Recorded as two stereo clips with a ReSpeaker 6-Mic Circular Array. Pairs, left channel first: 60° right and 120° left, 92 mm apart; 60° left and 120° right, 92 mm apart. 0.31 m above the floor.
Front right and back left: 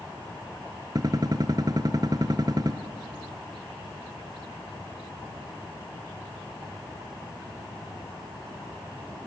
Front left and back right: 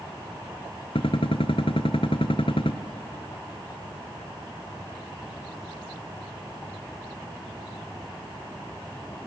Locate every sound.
0.9 s a gunshot: 75° left, 1.1 m